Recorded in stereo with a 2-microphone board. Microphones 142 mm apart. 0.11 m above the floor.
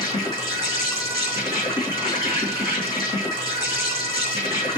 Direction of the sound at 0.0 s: 25° left (ahead or behind).